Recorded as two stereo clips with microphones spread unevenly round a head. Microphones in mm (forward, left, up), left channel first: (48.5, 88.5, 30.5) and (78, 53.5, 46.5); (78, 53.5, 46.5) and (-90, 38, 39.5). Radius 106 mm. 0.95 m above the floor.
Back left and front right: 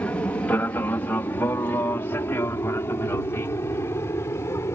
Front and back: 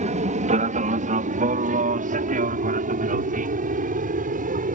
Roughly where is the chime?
I don't hear a chime.